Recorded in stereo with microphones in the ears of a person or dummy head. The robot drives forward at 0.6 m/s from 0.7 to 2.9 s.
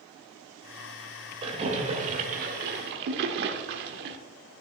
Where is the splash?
30° right (ahead or behind), 1.6 m; by 4.2 s 60° right (ahead or behind), 1.0 m.